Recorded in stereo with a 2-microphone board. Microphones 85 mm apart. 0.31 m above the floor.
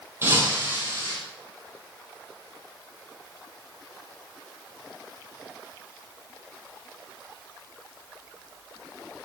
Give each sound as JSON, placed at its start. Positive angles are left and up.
{"t": 0.2, "sound": "breaking glass", "side_deg": -30, "distance_m": 5.5}